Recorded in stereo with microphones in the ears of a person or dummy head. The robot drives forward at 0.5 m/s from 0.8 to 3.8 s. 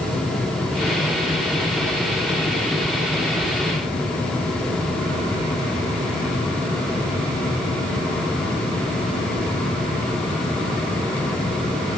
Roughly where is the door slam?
No door slam in this recording.